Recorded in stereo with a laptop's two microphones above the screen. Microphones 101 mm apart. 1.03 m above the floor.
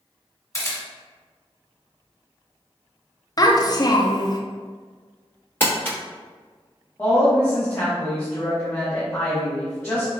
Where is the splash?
I don't hear a splash.